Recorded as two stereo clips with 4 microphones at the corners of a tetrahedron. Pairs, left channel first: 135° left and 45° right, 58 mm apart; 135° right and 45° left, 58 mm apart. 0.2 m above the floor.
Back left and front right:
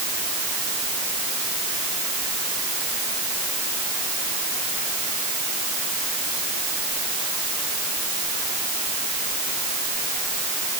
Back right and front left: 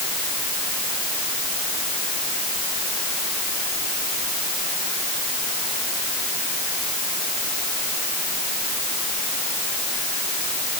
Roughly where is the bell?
I don't hear a bell.